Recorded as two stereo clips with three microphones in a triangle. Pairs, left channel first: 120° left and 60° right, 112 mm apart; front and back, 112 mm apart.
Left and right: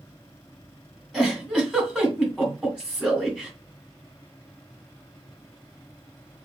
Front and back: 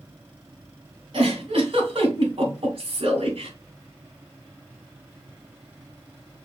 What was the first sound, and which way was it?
A giggle, 145° right.